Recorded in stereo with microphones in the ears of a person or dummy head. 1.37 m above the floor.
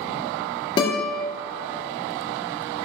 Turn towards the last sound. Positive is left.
turn(degrees=25)  # may be behind; listen again after turning